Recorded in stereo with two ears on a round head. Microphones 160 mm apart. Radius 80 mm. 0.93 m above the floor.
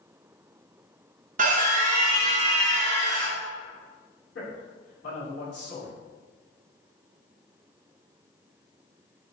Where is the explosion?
I don't hear an explosion.